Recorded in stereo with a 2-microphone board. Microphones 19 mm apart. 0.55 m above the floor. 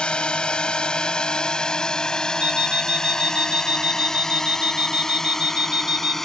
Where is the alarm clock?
65° right (ahead or behind).